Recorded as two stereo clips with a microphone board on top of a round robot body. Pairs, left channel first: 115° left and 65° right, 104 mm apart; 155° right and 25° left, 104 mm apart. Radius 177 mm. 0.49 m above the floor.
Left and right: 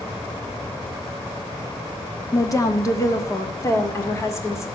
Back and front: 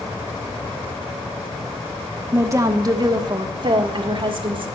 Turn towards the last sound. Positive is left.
turn(degrees=50)